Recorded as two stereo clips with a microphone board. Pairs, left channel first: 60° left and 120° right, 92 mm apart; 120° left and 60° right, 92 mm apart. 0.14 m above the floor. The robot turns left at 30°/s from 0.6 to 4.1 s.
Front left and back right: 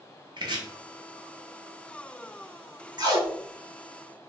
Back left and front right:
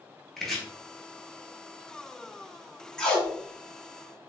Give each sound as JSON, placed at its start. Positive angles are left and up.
{"t": 0.4, "sound": "chopping", "azimuth_deg": -155, "distance_m": 0.7}
{"t": 3.0, "sound": "tape being pulled", "azimuth_deg": -160, "distance_m": 0.6}